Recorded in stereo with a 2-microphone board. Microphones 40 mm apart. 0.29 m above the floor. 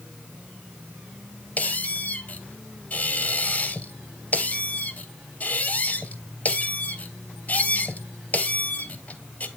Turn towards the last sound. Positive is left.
turn(degrees=40)  # may be behind; listen again after turning